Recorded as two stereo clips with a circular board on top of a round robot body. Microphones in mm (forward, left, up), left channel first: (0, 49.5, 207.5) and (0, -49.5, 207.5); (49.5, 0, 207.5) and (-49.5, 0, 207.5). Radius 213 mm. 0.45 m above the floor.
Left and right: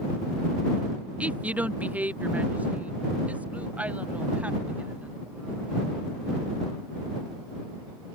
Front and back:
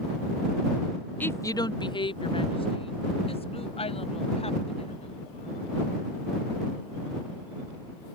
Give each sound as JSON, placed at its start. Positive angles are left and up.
{"t": 1.2, "sound": "a woman speaking", "azimuth_deg": -35}